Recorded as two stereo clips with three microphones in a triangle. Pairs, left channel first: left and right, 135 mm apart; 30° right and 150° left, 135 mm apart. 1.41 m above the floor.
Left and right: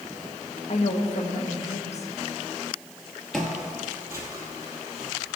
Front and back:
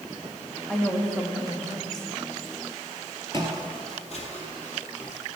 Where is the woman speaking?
55° left, 1.0 m.